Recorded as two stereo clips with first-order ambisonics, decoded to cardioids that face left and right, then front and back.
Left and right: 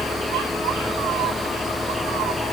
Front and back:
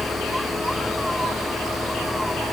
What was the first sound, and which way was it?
Only background noise.